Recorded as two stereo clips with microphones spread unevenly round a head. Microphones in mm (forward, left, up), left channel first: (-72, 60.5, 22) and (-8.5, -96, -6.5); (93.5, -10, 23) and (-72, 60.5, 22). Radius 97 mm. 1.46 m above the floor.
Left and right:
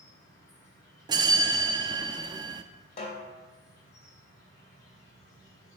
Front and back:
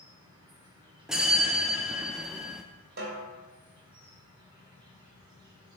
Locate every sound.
0.0 s an insect: 95° left, 3 m
1.1 s a bell: 120° right, 0.5 m
3.0 s a snare drum: 125° left, 2.5 m